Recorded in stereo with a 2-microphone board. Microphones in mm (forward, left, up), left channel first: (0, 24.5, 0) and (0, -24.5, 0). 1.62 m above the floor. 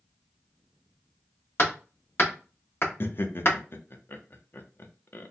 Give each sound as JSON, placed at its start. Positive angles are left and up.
{"t": 1.6, "sound": "hammering", "side_deg": 50, "distance_m": 1.5}
{"t": 3.0, "sound": "laughter", "side_deg": 45, "distance_m": 0.6}